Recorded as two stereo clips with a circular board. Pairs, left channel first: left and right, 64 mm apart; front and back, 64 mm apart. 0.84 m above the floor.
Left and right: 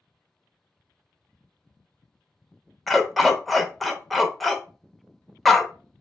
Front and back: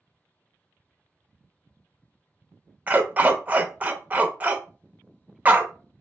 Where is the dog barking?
175° left, 0.5 m.